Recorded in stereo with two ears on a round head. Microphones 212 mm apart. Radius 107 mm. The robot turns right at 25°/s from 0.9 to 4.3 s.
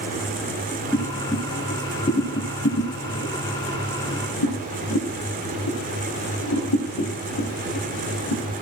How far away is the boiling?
About 7 m.